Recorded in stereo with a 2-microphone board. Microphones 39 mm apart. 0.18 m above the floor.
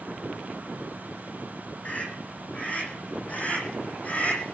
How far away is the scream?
About 10 m.